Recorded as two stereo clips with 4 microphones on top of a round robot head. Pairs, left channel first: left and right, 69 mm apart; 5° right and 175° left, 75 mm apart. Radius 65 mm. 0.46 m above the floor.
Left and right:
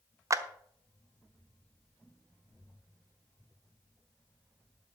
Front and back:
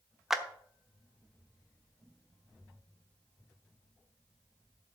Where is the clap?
100° right, 0.9 m.